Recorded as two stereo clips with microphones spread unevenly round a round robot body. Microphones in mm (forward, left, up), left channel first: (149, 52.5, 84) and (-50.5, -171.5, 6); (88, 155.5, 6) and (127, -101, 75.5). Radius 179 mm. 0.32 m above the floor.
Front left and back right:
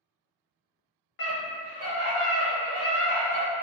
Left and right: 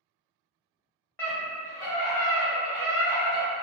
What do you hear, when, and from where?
1.2 s a scream: 70° left, 1.0 m; by 3.5 s 75° right, 1.3 m